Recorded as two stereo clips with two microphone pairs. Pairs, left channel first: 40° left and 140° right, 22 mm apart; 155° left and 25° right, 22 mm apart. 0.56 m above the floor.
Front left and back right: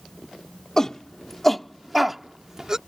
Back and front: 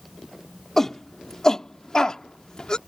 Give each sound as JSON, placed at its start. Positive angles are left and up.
{"t": 0.8, "sound": "a shout", "azimuth_deg": 85}